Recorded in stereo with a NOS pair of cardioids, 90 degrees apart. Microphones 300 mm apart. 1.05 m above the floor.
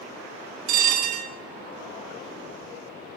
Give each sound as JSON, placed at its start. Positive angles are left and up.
{"t": 0.7, "sound": "a bell", "azimuth_deg": -70, "distance_m": 0.5}